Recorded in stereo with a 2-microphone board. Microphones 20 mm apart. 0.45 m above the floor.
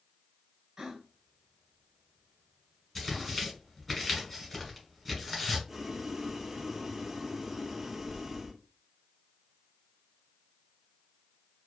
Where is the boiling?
20° right (ahead or behind), 0.5 m.